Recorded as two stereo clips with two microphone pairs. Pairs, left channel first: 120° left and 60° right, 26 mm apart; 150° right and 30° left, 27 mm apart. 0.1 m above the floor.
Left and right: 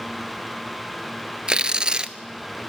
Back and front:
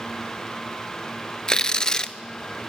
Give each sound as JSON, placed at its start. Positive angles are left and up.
{"t": 1.5, "sound": "tearing paper", "azimuth_deg": -95, "distance_m": 0.9}